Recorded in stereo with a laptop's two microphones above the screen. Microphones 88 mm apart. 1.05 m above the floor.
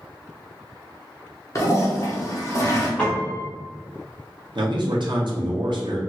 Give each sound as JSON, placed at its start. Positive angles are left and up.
{"t": 1.6, "sound": "a toilet flushing", "side_deg": 35, "distance_m": 0.8}
{"t": 3.0, "sound": "a piano", "side_deg": 10, "distance_m": 1.0}
{"t": 4.5, "sound": "a man speaking", "side_deg": -60, "distance_m": 0.8}